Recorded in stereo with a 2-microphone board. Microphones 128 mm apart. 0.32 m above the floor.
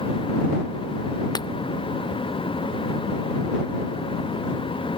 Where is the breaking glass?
35° left (ahead or behind).